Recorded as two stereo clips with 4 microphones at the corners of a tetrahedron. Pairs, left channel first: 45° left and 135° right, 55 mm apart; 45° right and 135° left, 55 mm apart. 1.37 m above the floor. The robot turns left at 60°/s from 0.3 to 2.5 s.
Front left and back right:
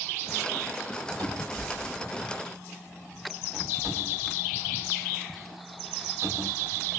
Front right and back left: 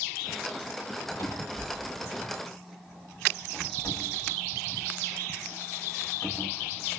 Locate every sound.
1.2 s a cupboard door: 20° right, 3 m; by 6.9 s 100° right, 3 m